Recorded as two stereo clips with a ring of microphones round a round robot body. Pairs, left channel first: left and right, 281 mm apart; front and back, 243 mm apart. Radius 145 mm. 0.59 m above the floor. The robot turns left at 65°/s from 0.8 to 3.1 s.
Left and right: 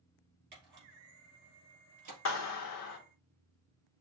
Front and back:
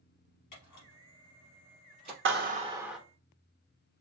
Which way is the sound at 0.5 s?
35° right.